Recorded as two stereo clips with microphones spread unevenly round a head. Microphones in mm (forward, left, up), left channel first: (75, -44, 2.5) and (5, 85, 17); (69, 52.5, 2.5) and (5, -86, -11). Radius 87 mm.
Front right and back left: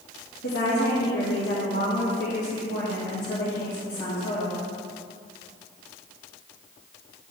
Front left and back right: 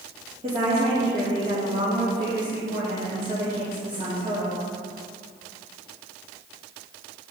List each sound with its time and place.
0.4 s a woman speaking: 70° right, 2.5 m